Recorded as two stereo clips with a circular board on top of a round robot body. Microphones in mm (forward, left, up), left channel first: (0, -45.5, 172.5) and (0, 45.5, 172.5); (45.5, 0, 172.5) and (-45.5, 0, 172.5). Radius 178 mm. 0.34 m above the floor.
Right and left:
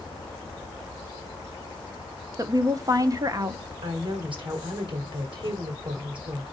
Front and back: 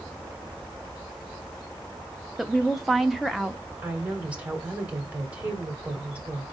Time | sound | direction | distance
2.4 | a woman speaking | 95° left | 1.1 m
3.8 | a woman speaking | 105° left | 3 m